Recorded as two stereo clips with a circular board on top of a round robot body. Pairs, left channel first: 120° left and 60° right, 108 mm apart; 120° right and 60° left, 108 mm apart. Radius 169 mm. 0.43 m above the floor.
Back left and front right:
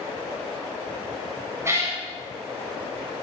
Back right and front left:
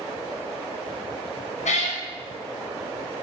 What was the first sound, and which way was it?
A cat meowing, 125° right.